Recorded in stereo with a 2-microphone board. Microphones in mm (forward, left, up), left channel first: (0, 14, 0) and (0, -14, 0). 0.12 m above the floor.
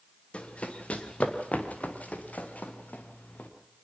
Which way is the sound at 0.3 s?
45° left (ahead or behind).